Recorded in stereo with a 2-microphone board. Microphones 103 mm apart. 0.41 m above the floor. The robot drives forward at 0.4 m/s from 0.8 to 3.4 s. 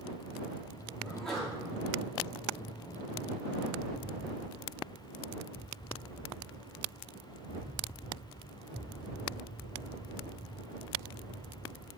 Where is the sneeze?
5° left (ahead or behind), 3 m.